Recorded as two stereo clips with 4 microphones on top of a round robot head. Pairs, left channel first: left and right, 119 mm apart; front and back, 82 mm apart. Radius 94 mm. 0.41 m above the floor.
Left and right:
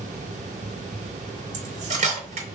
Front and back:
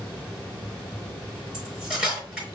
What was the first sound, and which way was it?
Cutlery clinking, 95° right.